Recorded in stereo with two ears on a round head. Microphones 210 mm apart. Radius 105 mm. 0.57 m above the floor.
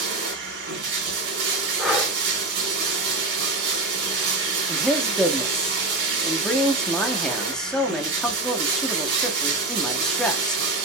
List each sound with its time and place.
0.0 s running water: 55° right (ahead or behind), 1.8 m
1.8 s breathing: centre (ahead or behind), 0.7 m
4.7 s a man speaking: 5° left (ahead or behind), 0.6 m